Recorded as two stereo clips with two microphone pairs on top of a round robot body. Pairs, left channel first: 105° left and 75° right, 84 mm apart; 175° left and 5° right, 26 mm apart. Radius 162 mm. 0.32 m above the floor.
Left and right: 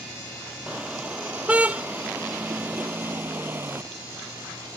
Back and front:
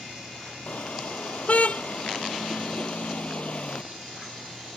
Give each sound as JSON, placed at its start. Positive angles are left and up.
{"t": 0.7, "sound": "a car horn", "azimuth_deg": -155}